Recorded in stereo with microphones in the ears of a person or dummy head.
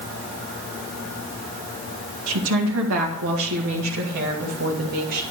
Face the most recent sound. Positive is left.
turn(degrees=-55)  # may be behind; listen again after turning